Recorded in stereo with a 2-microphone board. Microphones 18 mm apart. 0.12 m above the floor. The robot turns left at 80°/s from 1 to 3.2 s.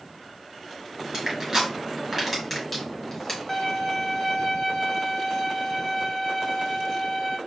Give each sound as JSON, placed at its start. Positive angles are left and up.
{"t": 1.1, "sound": "crushing", "side_deg": -30, "distance_m": 1.9}
{"t": 3.5, "sound": "a violin", "side_deg": 25, "distance_m": 1.0}